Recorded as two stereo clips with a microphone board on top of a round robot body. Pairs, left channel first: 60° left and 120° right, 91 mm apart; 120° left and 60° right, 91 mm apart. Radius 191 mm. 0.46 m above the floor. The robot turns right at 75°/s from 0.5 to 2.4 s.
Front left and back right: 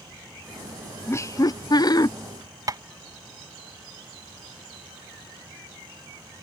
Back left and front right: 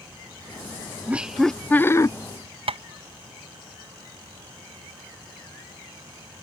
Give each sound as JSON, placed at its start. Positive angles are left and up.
{"t": 1.1, "sound": "laughter", "azimuth_deg": 5}
{"t": 2.7, "sound": "tapping", "azimuth_deg": -70}